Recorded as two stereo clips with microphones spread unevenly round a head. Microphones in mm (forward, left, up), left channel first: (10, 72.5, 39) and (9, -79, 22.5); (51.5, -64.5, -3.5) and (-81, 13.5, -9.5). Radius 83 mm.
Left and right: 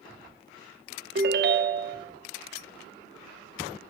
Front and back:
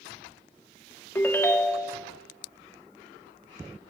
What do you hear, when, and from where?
1.1 s a ringtone: 100° right, 0.7 m